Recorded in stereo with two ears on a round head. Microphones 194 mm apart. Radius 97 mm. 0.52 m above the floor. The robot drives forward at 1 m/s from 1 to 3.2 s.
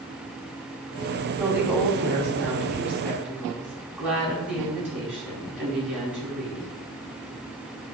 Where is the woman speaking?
10° right (ahead or behind), 3 m; by 6.7 s 5° right (ahead or behind), 4.5 m.